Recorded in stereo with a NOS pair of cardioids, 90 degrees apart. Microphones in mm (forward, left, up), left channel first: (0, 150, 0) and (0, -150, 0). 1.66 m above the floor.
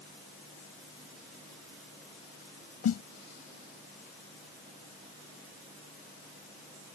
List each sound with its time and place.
2.8 s a snare drum: 55° left